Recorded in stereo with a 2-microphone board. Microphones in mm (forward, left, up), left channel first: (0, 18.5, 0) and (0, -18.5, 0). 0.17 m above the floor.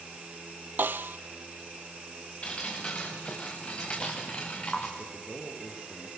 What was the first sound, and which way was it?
A snare drum, 65° right (ahead or behind).